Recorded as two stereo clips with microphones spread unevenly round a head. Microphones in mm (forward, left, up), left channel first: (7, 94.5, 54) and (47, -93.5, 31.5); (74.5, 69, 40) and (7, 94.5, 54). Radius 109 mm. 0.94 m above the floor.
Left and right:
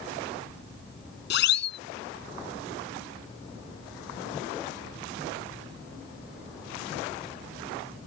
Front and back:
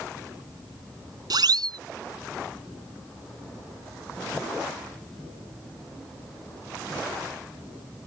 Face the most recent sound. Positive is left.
turn(degrees=140)